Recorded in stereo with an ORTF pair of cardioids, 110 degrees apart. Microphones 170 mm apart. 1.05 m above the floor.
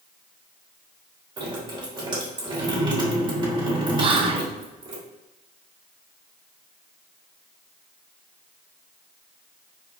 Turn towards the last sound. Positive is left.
turn(degrees=-30)